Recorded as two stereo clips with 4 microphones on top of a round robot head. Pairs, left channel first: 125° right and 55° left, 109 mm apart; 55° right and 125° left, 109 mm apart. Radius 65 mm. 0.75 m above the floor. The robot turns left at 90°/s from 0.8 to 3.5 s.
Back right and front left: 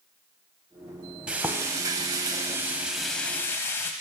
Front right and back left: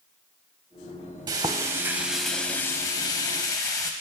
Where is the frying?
125° left, 0.6 m; by 3.9 s 80° right, 0.6 m.